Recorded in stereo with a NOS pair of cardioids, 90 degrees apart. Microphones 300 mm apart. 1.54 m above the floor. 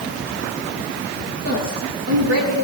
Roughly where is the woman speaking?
Ahead right.